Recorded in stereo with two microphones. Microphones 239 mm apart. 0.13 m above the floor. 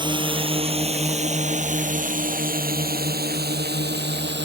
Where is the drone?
20° right (ahead or behind); by 4.4 s 45° right (ahead or behind).